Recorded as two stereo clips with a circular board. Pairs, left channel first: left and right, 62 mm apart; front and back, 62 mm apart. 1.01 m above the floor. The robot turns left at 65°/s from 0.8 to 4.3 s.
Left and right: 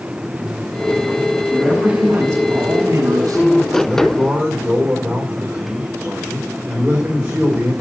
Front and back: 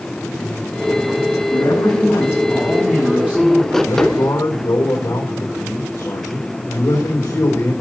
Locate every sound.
1.5 s a man speaking: straight ahead, 6.5 m; by 3.8 s 145° right, 6.5 m
3.9 s a man speaking: 10° left, 4.5 m; by 7.7 s 20° right, 4.5 m